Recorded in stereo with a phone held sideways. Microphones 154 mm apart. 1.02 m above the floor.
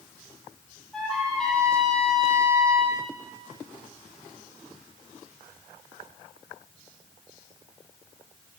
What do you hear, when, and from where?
0.9 s a trumpet: 5° left (ahead or behind), 9.5 m